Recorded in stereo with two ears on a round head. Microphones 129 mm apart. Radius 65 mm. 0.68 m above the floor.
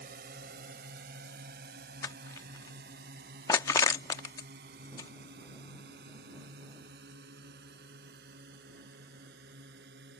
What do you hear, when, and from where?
0.0 s a drone: 70° right (ahead or behind); by 10.2 s 80° right
2.0 s crushing: 20° left (ahead or behind)